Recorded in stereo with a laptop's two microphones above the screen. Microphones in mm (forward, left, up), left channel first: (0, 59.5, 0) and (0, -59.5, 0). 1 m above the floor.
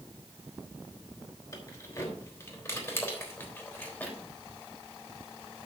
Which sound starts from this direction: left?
Keys jangling, at 1.5 s.